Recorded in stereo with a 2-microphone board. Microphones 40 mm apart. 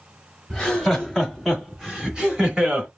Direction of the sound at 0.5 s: 15° left (ahead or behind).